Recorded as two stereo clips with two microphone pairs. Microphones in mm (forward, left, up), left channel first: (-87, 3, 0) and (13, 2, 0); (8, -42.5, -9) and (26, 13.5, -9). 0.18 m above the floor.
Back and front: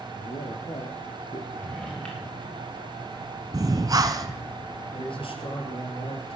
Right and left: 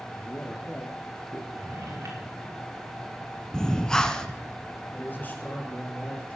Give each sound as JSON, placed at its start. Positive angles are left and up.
{"t": 0.1, "sound": "a man speaking", "azimuth_deg": -165, "distance_m": 3.0}
{"t": 1.5, "sound": "a drawer", "azimuth_deg": 100, "distance_m": 5.5}
{"t": 3.5, "sound": "breathing", "azimuth_deg": -35, "distance_m": 1.3}
{"t": 4.9, "sound": "a man speaking", "azimuth_deg": -165, "distance_m": 4.5}